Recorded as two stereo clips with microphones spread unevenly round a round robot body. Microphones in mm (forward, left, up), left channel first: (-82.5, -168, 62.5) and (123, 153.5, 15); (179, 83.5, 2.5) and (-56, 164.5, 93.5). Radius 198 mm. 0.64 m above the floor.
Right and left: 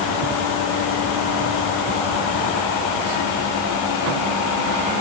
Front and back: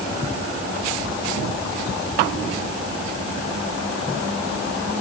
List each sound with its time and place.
Only background noise.